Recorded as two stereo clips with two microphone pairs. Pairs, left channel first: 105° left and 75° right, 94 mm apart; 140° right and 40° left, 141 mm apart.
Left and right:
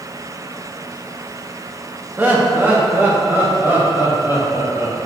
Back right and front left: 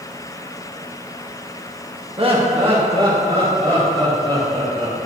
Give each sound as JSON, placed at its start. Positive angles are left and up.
{"t": 2.2, "sound": "laughter", "azimuth_deg": -5, "distance_m": 0.9}